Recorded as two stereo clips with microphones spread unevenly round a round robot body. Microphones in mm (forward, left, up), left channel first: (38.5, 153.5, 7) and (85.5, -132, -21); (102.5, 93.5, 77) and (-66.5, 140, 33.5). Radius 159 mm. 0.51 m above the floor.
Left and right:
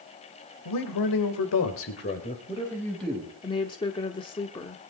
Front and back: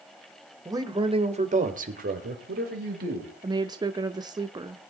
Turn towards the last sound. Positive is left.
turn(degrees=170)